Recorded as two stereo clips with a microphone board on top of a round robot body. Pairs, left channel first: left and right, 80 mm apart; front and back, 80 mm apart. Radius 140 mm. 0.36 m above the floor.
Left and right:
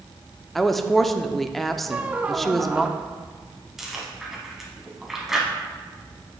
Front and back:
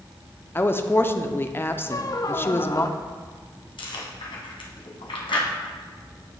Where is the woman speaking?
5° left, 0.8 m.